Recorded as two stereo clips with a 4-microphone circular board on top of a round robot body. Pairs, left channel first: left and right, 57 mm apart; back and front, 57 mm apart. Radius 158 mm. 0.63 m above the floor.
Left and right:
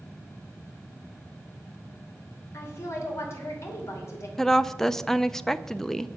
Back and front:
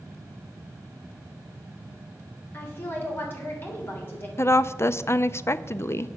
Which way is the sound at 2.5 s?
130° left.